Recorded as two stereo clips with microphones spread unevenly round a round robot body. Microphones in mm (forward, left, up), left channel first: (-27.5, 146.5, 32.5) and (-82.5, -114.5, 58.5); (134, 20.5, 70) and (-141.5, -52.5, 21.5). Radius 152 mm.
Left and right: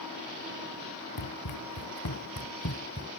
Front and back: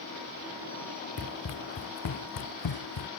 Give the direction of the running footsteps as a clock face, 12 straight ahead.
10 o'clock.